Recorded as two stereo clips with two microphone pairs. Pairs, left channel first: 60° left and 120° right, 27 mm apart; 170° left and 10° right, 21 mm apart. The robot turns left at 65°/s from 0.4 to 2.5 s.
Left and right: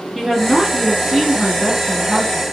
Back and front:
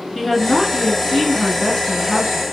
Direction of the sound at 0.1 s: 170° right.